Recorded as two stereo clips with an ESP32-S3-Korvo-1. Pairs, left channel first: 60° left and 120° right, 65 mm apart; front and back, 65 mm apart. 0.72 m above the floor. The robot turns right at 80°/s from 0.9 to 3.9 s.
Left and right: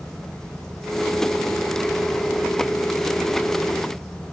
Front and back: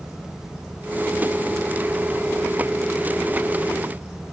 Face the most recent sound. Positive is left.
No sound to turn to.